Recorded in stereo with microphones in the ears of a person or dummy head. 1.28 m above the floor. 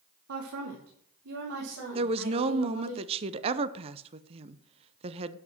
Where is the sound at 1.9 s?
25° right (ahead or behind), 0.7 m.